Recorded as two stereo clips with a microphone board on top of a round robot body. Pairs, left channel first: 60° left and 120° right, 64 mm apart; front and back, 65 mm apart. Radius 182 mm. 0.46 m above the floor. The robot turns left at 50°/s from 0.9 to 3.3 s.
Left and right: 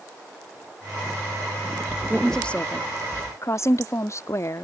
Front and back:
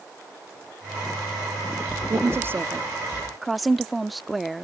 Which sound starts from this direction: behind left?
A woman speaking, at 2.1 s.